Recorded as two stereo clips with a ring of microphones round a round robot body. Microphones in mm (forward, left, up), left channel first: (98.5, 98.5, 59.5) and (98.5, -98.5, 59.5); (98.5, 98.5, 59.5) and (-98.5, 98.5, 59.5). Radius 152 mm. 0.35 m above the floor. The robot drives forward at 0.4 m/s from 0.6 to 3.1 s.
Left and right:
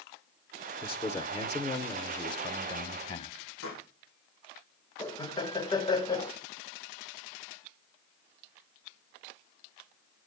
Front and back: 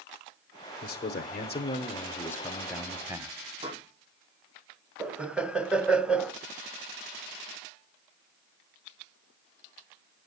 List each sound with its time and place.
0.8 s a man speaking: 25° left, 1.2 m; by 3.4 s 115° left, 0.9 m
3.6 s a pop: 125° left, 6 m
5.0 s laughter: 105° left, 0.8 m